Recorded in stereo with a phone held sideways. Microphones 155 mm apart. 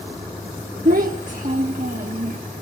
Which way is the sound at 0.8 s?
60° right (ahead or behind).